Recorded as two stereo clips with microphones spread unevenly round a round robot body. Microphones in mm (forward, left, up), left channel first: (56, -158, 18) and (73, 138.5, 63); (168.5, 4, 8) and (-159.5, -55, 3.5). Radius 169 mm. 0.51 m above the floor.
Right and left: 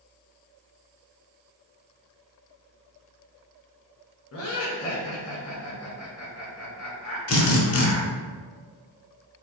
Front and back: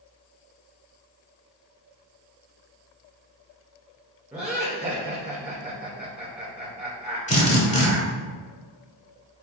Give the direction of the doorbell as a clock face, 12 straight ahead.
I don't hear a doorbell.